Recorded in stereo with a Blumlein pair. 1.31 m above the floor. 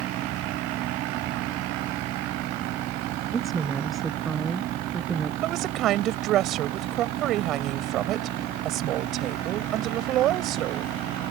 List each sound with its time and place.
0.0 s a fan: 35° right
3.3 s a woman speaking: 15° right
5.4 s a woman speaking: 35° right